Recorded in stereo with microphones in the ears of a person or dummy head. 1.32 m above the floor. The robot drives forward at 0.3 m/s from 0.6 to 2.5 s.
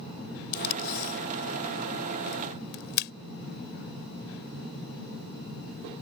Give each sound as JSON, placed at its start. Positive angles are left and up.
{"t": 0.5, "sound": "tape being pulled", "side_deg": 55}